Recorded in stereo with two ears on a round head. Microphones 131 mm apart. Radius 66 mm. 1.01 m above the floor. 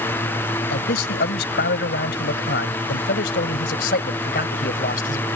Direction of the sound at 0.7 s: 85° left.